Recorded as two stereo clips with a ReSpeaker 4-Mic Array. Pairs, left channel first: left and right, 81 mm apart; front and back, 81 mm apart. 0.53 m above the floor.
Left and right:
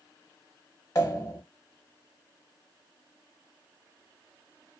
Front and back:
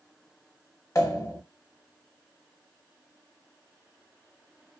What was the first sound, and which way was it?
A pop, 45° left.